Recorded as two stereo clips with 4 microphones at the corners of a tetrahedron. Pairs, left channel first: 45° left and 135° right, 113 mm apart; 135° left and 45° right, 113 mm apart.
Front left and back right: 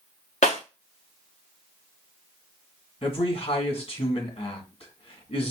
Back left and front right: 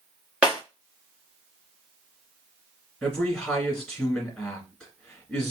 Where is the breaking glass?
35° left, 2 m.